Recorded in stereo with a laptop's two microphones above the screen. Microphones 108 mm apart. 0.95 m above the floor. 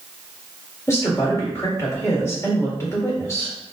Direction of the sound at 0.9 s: 30° left (ahead or behind).